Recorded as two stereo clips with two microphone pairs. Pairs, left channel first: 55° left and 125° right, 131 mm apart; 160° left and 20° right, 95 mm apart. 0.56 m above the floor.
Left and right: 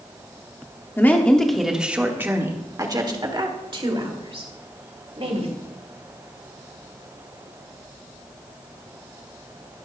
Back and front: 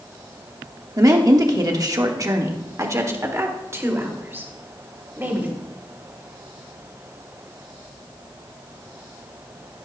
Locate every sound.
1.0 s a woman speaking: 5° right, 1.2 m; by 5.5 s 90° right, 3 m